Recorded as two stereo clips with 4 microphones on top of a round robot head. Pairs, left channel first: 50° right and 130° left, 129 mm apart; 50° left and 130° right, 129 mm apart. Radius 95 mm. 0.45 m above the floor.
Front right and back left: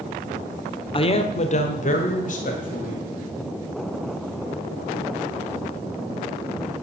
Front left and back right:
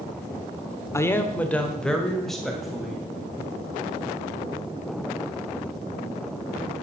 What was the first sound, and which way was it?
A man speaking, 15° right.